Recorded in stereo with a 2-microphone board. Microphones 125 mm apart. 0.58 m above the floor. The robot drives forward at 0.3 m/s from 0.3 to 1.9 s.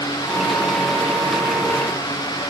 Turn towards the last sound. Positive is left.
No sound to turn to.